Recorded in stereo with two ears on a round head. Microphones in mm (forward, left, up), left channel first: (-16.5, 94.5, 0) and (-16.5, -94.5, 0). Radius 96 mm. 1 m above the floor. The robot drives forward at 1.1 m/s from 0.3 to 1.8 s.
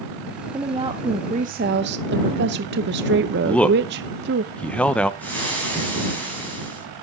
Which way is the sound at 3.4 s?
5° left (ahead or behind).